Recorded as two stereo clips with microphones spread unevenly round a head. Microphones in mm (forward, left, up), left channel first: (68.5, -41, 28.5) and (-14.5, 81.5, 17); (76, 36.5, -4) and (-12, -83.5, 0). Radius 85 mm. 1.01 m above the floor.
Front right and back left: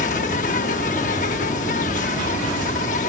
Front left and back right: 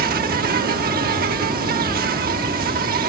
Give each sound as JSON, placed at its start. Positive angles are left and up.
{"t": 0.0, "sound": "an insect", "azimuth_deg": -105}